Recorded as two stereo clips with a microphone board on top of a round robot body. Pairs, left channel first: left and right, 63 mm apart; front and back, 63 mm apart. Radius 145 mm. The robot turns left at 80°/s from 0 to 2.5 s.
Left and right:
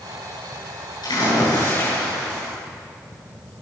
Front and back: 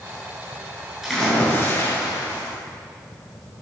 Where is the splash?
95° left, 9 m; by 2.5 s 20° right, 9 m.